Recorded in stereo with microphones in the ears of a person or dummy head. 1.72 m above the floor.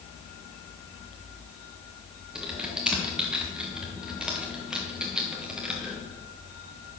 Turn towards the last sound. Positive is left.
turn(degrees=-5)  # may be behind; listen again after turning